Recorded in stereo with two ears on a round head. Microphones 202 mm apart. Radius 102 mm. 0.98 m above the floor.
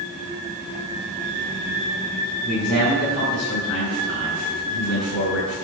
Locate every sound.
2.4 s a man speaking: 80° left, 5 m